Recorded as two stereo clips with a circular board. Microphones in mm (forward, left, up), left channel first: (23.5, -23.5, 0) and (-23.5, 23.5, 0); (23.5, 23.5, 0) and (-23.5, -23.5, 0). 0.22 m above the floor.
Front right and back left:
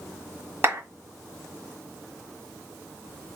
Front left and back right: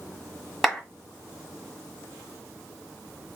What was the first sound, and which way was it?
A clap, 135° left.